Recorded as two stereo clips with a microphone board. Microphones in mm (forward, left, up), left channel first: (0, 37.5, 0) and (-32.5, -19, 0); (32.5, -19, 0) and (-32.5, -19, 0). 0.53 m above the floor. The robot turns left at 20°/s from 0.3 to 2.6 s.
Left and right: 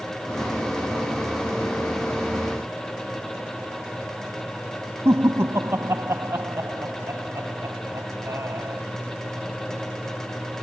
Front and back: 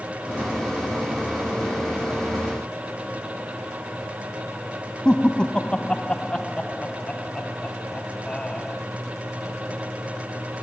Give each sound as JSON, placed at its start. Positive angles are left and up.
{"t": 5.0, "sound": "laughter", "azimuth_deg": -75}